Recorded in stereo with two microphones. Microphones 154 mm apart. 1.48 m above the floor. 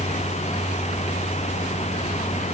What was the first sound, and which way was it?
Only background noise.